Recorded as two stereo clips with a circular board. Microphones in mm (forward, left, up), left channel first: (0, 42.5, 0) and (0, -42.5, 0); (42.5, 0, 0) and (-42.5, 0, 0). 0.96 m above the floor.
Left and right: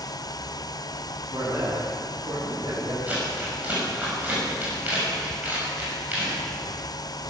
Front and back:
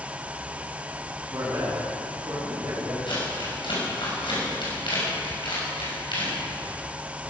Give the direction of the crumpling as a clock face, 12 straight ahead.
1 o'clock.